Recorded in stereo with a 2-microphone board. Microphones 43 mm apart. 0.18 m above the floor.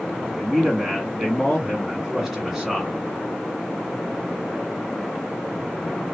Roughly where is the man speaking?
Centre.